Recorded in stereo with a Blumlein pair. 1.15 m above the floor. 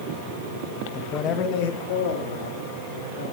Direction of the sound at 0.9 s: 15° left.